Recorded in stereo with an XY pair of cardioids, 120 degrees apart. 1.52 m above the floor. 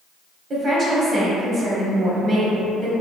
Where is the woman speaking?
40° right, 1.0 m.